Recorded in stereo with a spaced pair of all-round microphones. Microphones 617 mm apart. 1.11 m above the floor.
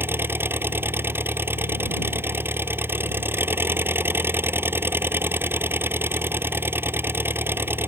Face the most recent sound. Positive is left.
turn(degrees=-5)  # may be behind; listen again after turning